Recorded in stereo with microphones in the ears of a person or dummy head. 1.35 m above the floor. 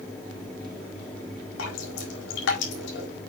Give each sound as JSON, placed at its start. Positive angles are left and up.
{"t": 1.6, "sound": "dripping", "side_deg": 80, "distance_m": 4.5}